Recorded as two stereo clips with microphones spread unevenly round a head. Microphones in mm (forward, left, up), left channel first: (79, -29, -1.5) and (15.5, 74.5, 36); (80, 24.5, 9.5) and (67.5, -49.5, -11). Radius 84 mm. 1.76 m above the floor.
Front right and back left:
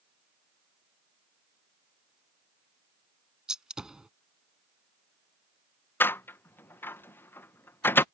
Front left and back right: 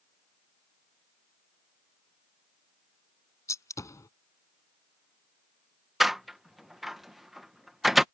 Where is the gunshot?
45° left.